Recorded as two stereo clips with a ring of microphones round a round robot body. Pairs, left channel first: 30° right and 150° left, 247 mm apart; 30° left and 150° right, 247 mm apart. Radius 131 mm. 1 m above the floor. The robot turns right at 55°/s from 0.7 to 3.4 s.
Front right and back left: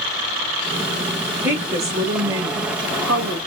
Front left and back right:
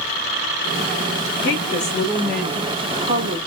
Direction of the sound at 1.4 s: 65° left.